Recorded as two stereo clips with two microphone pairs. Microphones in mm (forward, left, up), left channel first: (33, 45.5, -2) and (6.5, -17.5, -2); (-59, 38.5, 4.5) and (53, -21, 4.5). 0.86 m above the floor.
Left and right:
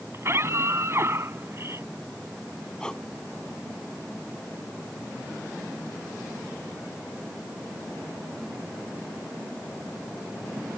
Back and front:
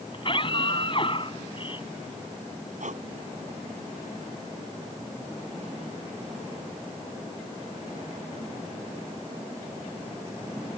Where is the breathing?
10° right.